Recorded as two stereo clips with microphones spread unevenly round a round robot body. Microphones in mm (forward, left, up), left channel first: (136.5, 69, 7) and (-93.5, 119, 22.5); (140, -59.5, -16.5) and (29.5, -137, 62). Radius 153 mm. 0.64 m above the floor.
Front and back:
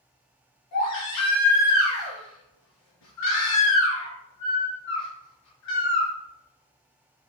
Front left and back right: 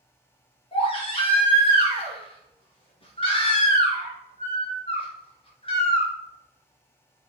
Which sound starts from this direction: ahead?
A baby crying, at 0.7 s.